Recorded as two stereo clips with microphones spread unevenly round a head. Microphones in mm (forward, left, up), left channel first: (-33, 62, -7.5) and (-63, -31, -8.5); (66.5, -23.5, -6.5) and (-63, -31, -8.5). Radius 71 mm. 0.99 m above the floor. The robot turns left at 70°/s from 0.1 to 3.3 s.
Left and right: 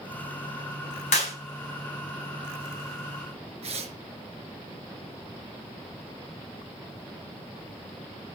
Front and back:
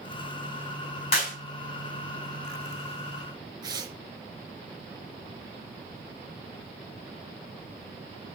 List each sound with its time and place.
1.1 s a clap: 55° left, 5.5 m; by 1.4 s 40° left, 5.5 m
3.6 s tearing paper: 120° right, 3.5 m